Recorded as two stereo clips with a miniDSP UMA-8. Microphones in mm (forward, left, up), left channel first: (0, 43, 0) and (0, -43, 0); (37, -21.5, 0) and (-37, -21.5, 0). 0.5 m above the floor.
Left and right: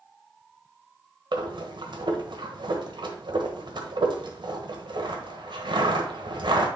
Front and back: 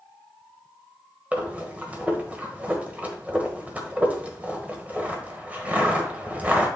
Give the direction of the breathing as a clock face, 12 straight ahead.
4 o'clock.